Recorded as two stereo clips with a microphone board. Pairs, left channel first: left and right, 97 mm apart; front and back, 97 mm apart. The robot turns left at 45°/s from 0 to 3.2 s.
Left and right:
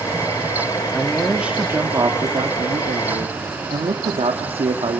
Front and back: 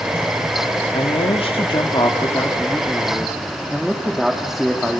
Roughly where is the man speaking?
Ahead.